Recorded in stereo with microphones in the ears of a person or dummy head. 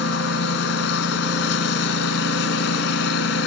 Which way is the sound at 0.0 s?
75° left (ahead or behind).